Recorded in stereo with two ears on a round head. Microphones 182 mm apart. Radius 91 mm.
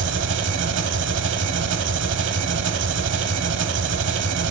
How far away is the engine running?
About 1.0 m.